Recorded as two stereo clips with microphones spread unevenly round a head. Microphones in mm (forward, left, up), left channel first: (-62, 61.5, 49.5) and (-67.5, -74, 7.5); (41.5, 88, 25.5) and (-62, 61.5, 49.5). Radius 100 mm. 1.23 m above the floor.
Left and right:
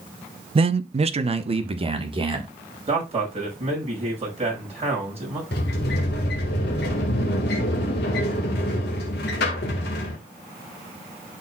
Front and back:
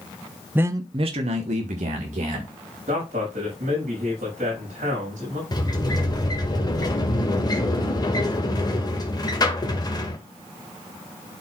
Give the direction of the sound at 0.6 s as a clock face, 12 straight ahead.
3 o'clock.